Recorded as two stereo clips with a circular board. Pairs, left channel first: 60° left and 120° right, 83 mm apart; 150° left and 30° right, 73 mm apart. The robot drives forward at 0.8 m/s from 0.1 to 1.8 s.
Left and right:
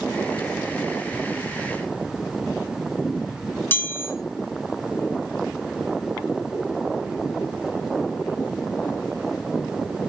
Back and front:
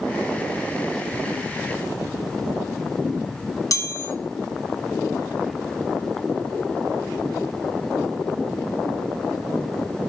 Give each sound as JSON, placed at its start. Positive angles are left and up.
{"t": 3.7, "sound": "a chime", "azimuth_deg": 120, "distance_m": 1.9}